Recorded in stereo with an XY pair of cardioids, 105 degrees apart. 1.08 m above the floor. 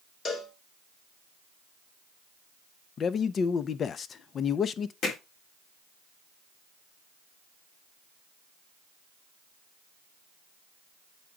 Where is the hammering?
65° left, 3.5 m.